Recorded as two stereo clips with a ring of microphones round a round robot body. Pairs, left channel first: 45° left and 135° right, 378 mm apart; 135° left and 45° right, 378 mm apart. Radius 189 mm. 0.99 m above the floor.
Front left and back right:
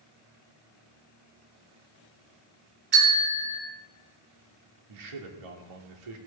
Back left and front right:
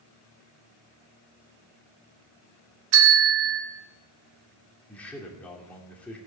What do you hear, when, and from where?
2.9 s a bell: 70° right, 3 m
4.9 s a man speaking: 140° right, 2.5 m